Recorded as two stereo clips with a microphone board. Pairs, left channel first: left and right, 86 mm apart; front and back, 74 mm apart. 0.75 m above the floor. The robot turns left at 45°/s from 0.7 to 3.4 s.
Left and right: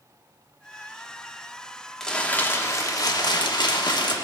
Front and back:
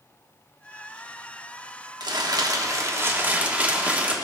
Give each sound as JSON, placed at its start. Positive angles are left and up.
{"t": 2.0, "sound": "crumpling", "azimuth_deg": 170, "distance_m": 1.2}